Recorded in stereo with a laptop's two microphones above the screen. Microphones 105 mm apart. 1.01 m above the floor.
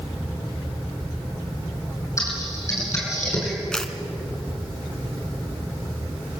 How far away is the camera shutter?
About 2.5 m.